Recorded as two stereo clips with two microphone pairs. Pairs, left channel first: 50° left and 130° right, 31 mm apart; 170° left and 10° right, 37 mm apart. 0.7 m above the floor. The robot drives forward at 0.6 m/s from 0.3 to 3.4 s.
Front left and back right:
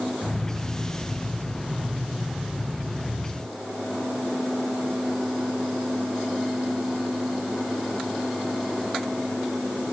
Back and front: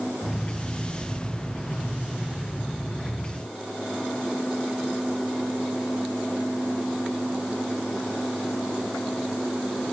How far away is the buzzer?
I don't hear a buzzer.